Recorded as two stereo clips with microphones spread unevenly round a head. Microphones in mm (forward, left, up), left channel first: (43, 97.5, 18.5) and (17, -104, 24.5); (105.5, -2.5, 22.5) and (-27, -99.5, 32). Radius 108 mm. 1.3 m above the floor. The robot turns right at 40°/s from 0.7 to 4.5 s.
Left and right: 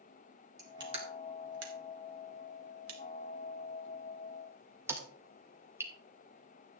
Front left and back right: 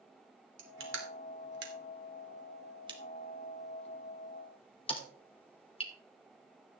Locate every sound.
0.6 s crushing: 170° right, 2.5 m; by 5.9 s 20° right, 2.5 m